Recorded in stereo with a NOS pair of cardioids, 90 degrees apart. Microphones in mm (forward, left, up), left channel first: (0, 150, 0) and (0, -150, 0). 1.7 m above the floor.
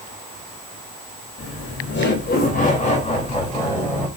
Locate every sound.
1.4 s laughter: 45° left, 3 m; by 4.1 s 5° left, 3.5 m